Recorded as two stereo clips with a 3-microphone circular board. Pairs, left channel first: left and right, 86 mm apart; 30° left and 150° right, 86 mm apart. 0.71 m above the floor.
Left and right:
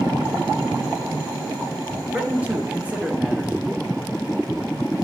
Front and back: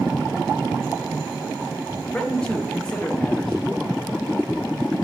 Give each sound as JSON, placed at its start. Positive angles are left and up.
{"t": 2.1, "sound": "a man speaking", "azimuth_deg": -35, "distance_m": 1.0}